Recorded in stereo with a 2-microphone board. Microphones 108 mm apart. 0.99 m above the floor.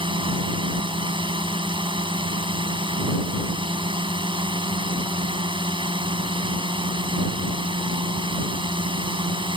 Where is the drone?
50° right (ahead or behind).